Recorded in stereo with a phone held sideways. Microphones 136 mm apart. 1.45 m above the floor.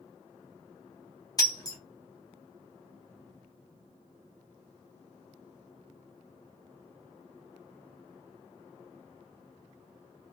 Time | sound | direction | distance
1.4 | breaking glass | 30° left (ahead or behind) | 0.8 m